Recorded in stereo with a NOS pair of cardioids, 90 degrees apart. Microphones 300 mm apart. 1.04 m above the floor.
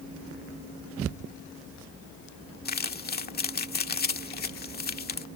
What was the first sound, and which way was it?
Crumpling, 30° left.